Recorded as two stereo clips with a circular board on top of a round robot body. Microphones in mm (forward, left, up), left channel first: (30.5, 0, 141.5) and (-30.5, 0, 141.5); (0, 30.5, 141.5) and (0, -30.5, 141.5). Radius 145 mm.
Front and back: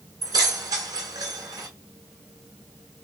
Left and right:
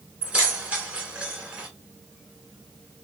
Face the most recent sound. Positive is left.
turn(degrees=-155)